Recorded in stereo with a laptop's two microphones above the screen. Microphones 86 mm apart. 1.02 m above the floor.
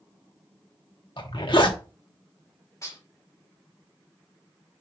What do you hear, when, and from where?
1.2 s a zipper: 60° left (ahead or behind), 1.1 m
2.8 s dishes clattering: 35° left (ahead or behind), 1.9 m